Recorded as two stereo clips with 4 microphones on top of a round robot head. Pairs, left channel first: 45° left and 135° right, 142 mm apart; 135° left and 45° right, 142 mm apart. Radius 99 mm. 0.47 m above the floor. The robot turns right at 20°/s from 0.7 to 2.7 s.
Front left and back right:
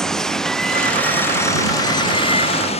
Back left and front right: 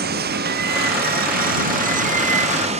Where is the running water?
40° right; by 2.8 s straight ahead.